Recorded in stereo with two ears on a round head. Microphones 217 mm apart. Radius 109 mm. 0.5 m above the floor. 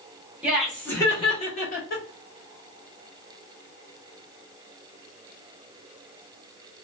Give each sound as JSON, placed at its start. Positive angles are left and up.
{"t": 0.4, "sound": "laughter", "side_deg": -5, "distance_m": 1.2}